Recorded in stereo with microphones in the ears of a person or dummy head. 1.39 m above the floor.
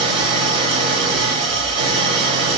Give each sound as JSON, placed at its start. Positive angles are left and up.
{"t": 0.0, "sound": "an engine running", "side_deg": -35, "distance_m": 2.0}